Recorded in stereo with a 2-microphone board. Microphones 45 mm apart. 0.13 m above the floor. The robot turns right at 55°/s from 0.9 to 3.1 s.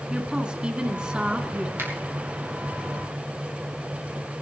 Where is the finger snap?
65° right (ahead or behind), 3 m; by 1.9 s 70° right (ahead or behind), 3 m.